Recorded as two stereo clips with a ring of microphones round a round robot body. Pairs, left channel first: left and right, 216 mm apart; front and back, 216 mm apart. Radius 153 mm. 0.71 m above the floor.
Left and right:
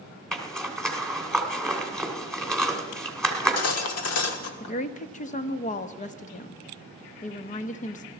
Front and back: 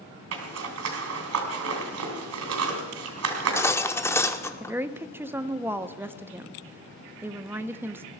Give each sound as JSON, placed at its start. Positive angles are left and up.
{"t": 0.3, "sound": "a zipper", "azimuth_deg": 175, "distance_m": 2.5}
{"t": 3.3, "sound": "cutlery clinking", "azimuth_deg": 80, "distance_m": 1.2}
{"t": 4.6, "sound": "a woman speaking", "azimuth_deg": 105, "distance_m": 0.7}